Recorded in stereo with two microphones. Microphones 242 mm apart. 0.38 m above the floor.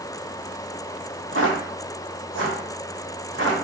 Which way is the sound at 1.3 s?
60° right (ahead or behind).